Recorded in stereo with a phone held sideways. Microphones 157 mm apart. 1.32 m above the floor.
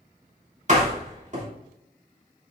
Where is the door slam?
50° right (ahead or behind), 3 m.